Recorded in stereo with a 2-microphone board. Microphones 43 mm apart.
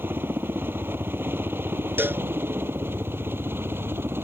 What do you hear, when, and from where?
0.0 s a helicopter: 55° right (ahead or behind); by 4.2 s 60° right (ahead or behind)
2.0 s a cowbell: 55° right (ahead or behind)